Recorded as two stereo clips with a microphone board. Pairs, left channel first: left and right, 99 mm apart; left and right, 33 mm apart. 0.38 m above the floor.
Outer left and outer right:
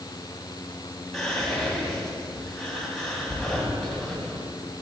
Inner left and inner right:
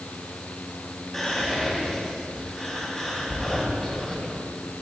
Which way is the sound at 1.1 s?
5° left (ahead or behind).